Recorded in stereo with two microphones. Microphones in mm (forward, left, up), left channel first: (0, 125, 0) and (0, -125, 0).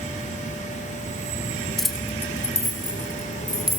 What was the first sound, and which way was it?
Keys jangling, centre (ahead or behind).